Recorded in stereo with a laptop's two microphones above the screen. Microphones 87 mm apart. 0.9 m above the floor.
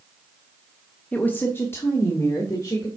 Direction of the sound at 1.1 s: 15° left (ahead or behind).